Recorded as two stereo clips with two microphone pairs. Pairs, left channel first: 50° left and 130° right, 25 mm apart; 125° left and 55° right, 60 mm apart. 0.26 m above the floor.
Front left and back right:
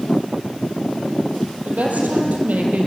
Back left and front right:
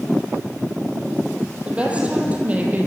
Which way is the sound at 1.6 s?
125° right.